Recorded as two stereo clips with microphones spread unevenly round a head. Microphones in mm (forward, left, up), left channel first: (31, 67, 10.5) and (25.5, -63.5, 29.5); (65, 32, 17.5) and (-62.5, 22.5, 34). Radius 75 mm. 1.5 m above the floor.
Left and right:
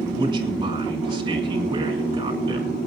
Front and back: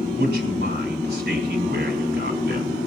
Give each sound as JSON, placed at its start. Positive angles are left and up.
{"t": 0.1, "sound": "a man speaking", "azimuth_deg": -160, "distance_m": 6.0}